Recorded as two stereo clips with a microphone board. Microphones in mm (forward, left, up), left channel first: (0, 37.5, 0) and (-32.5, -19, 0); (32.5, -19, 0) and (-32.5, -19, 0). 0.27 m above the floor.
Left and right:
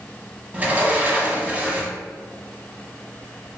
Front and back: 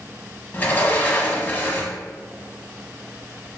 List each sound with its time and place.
0.5 s a sliding door: 60° right, 0.8 m